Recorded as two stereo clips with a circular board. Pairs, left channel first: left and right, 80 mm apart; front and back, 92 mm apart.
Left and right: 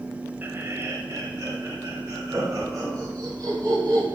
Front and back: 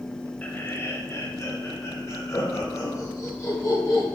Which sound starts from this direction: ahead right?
Laughter, at 0.4 s.